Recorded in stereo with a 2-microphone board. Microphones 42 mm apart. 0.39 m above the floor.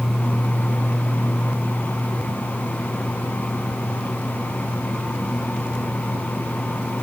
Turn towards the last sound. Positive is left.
No sound to turn to.